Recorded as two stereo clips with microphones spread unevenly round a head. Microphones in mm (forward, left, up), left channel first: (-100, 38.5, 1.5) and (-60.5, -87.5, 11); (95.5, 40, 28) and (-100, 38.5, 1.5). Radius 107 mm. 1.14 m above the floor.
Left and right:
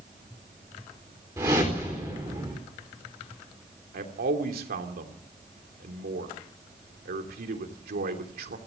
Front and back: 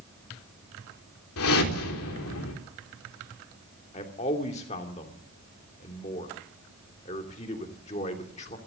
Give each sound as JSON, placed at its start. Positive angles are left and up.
{"t": 1.4, "sound": "a whoosh", "azimuth_deg": 5, "distance_m": 4.0}
{"t": 3.9, "sound": "a man speaking", "azimuth_deg": -60, "distance_m": 3.0}